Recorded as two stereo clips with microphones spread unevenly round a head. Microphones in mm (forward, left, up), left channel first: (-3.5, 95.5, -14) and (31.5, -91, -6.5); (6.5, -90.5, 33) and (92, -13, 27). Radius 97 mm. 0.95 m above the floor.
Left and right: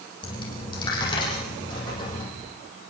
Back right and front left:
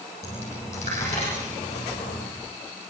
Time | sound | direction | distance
0.2 | a dropped coin | 170° left | 8 m